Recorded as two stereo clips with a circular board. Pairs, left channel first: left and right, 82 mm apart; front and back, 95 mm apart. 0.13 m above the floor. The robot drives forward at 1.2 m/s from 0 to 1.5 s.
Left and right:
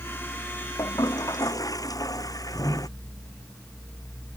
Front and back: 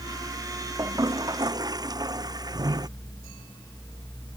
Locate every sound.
0.8 s a toilet flushing: 130° left; by 2.9 s 135° left